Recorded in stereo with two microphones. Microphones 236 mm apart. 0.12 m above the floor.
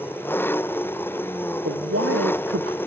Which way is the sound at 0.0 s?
10° left (ahead or behind).